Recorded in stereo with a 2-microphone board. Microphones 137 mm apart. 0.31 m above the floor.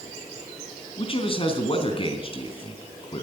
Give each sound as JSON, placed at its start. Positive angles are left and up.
{"t": 1.0, "sound": "a man speaking", "side_deg": 40, "distance_m": 3.5}